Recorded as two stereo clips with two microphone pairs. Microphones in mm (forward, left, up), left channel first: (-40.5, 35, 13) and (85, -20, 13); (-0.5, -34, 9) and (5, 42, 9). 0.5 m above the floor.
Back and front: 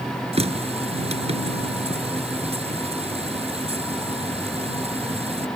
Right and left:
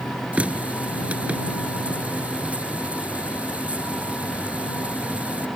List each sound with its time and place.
0.3 s a running tap: 15° left